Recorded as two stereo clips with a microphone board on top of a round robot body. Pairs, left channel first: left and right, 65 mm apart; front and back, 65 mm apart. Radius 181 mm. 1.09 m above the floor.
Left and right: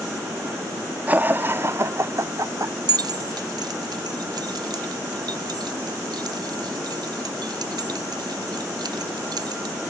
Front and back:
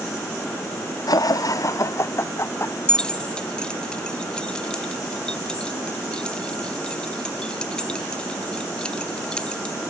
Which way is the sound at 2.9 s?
75° right.